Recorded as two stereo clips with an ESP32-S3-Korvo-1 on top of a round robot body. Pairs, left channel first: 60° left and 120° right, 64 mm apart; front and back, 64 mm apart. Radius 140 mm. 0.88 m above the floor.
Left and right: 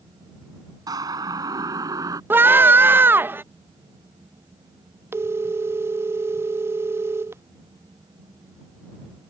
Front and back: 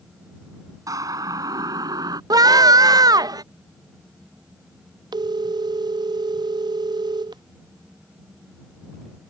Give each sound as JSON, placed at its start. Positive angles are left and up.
{"t": 0.9, "sound": "a siren", "azimuth_deg": -145}
{"t": 2.3, "sound": "a scream", "azimuth_deg": -175}
{"t": 5.1, "sound": "a phone ringing", "azimuth_deg": -170}